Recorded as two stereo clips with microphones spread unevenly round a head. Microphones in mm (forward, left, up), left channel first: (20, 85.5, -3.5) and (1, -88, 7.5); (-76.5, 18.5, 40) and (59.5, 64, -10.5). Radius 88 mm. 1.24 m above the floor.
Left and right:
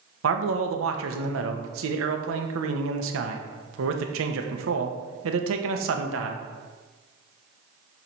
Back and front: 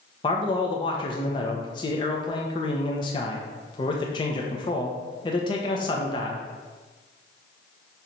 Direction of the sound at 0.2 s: 90° right.